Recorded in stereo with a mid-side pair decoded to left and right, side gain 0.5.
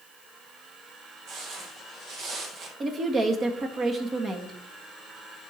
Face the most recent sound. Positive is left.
turn(degrees=-35)